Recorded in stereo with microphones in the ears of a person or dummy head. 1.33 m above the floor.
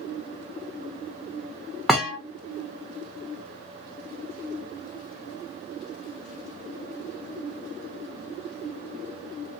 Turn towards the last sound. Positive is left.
turn(degrees=-5)  # may be behind; listen again after turning